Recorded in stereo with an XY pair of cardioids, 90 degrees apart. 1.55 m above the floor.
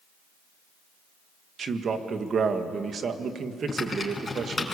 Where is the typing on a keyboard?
25° left, 5 m.